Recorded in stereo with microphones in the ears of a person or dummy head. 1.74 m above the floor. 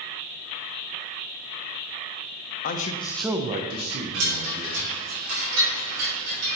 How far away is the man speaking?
About 1.0 m.